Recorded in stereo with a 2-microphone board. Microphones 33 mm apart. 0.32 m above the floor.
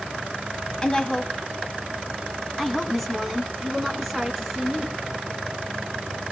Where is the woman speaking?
25° left (ahead or behind), 2.5 m; by 5.0 s 5° right (ahead or behind), 4.5 m.